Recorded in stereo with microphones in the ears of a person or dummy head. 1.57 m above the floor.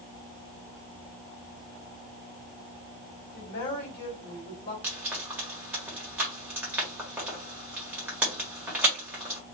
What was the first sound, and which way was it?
A woman speaking, 50° left (ahead or behind).